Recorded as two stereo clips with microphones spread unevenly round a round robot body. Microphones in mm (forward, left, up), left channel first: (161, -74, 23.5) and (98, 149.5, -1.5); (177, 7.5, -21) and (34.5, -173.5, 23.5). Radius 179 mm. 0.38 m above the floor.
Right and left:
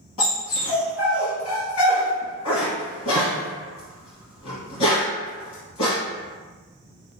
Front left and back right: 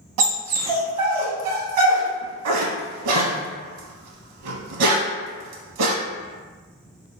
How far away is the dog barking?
About 0.7 m.